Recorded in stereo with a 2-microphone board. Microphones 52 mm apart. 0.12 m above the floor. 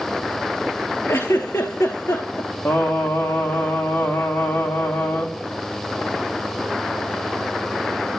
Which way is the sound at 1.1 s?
85° left.